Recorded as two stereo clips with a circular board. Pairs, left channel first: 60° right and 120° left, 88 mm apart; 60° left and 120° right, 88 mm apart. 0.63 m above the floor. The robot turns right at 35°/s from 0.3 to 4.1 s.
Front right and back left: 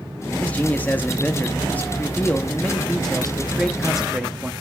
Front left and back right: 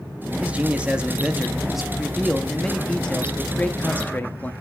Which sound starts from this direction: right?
A man speaking, at 0.4 s.